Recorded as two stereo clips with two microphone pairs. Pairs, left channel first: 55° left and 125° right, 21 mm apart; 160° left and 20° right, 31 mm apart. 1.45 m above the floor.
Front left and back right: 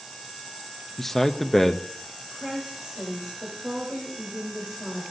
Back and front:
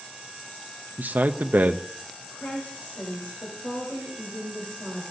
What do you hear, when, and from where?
1.0 s a man speaking: 25° right, 0.5 m
2.3 s a woman speaking: 160° left, 3.5 m